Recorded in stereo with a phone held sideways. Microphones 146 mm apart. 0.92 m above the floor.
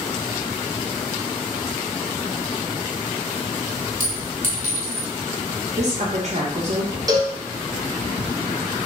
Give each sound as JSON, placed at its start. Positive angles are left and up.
{"t": 4.0, "sound": "a clink", "side_deg": -65, "distance_m": 1.7}
{"t": 5.8, "sound": "a woman speaking", "side_deg": -50, "distance_m": 0.6}
{"t": 7.1, "sound": "a cowbell", "side_deg": -25, "distance_m": 0.6}